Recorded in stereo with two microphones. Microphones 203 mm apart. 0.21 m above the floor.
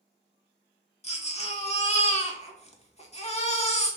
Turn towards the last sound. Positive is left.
turn(degrees=35)  # may be behind; listen again after turning